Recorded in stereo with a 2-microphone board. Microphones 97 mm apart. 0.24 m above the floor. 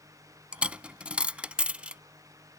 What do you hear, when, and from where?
0.5 s a dropped coin: 10° right (ahead or behind)